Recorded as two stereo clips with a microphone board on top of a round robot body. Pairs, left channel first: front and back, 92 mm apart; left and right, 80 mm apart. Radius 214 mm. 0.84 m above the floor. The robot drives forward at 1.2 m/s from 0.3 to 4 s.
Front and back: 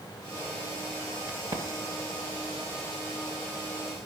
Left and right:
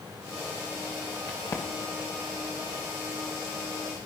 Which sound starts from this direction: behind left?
A crack, at 1.3 s.